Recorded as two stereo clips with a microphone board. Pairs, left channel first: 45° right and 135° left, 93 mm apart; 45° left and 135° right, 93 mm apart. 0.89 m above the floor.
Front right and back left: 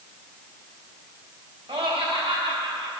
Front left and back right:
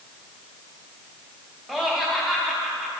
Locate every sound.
1.7 s laughter: 140° left, 1.7 m